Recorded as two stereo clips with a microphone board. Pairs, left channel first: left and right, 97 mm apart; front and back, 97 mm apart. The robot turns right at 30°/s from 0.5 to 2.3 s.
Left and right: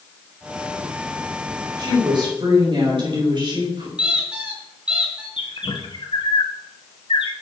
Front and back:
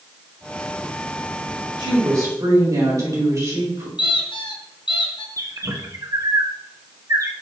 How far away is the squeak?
About 2.5 m.